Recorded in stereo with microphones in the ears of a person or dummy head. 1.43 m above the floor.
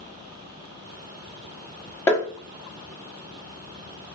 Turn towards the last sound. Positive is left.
turn(degrees=20)  # may be behind; listen again after turning